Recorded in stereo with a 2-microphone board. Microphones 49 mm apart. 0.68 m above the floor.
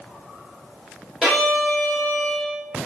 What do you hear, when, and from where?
1.2 s a violin: 15° right (ahead or behind), 2.0 m